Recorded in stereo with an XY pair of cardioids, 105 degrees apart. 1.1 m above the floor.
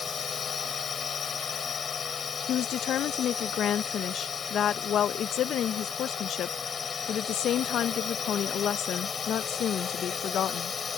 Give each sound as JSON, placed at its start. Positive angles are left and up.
{"t": 0.0, "sound": "a drone", "azimuth_deg": 40}
{"t": 2.5, "sound": "a woman speaking", "azimuth_deg": 65}